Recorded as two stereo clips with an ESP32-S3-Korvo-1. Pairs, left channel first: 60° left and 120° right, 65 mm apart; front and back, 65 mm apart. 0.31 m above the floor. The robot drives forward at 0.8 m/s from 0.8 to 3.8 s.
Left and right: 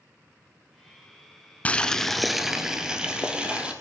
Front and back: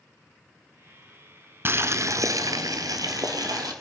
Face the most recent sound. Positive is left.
turn(degrees=165)